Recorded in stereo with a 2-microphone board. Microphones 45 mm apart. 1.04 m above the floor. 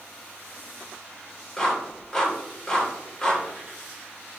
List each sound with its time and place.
1.6 s a clap: 10° left (ahead or behind), 4 m